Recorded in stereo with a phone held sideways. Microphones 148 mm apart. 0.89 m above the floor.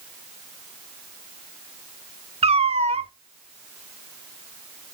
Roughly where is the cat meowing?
Right.